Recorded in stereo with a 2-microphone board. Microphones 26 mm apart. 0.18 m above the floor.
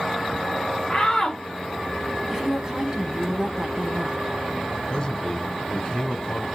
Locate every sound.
0.9 s a shout: 15° left (ahead or behind), 1.1 m
2.3 s a woman speaking: 25° right (ahead or behind), 1.3 m
4.9 s a man speaking: 35° left (ahead or behind), 1.2 m